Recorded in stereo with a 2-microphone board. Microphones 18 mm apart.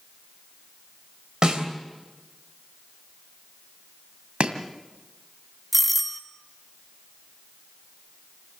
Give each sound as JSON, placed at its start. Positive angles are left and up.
{"t": 1.4, "sound": "a snare drum", "side_deg": -55, "distance_m": 3.0}
{"t": 4.4, "sound": "chopping", "side_deg": -90, "distance_m": 2.0}
{"t": 5.7, "sound": "a doorbell", "side_deg": -5, "distance_m": 1.4}